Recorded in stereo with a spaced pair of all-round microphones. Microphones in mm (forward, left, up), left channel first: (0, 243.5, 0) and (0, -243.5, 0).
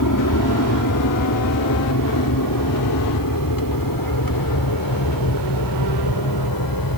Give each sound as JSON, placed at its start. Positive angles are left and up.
{"t": 0.0, "sound": "an aircraft", "side_deg": 40}